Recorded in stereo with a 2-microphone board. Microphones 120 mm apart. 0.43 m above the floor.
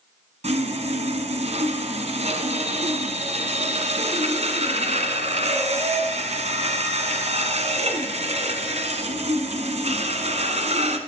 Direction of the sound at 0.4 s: 70° right (ahead or behind).